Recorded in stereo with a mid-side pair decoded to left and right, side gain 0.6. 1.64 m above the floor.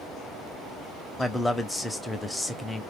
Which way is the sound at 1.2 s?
10° left.